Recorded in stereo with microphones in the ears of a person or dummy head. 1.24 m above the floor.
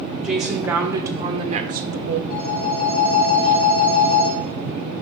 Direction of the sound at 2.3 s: 50° left (ahead or behind).